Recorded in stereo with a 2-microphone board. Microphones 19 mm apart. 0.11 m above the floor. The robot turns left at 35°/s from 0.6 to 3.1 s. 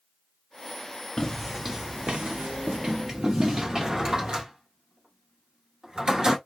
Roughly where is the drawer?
Right.